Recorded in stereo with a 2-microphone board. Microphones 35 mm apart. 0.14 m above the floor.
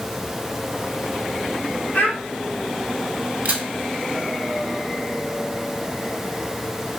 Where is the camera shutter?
50° right (ahead or behind), 1.0 m.